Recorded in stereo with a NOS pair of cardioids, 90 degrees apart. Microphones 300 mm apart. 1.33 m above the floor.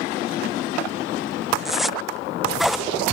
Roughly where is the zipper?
Ahead.